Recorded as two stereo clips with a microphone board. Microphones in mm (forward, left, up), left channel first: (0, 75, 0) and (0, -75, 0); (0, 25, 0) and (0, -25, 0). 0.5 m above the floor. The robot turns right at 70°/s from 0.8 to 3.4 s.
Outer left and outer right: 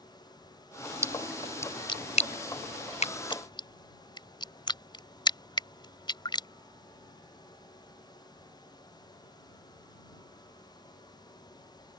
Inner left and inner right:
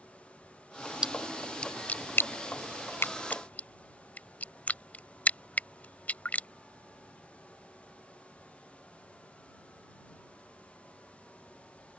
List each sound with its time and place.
1.0 s a splash: 20° right (ahead or behind); by 6.5 s 30° left (ahead or behind)